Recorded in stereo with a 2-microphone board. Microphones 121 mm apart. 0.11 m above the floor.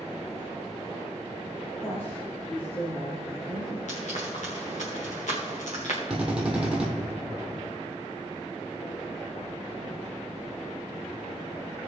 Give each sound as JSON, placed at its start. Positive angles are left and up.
{"t": 1.8, "sound": "a woman speaking", "side_deg": 20, "distance_m": 3.0}
{"t": 3.9, "sound": "frying", "side_deg": 75, "distance_m": 4.0}
{"t": 6.1, "sound": "a drill", "side_deg": -5, "distance_m": 3.0}